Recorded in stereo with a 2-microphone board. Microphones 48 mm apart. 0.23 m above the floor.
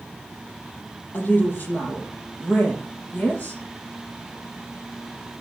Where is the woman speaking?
40° left (ahead or behind), 5.5 m.